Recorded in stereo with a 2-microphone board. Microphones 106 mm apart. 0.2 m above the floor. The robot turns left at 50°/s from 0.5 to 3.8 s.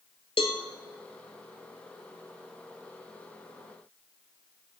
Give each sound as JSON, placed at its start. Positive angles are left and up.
{"t": 0.4, "sound": "a cowbell", "side_deg": 65, "distance_m": 1.2}